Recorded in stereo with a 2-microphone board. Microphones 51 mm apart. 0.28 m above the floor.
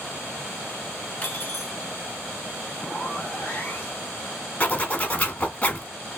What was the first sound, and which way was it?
Cutlery clinking, 30° left (ahead or behind).